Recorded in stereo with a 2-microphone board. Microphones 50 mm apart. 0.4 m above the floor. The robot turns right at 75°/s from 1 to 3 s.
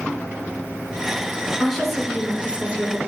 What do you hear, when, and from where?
1.6 s a woman speaking: 5° left (ahead or behind), 0.8 m; by 3.0 s 30° right (ahead or behind), 0.8 m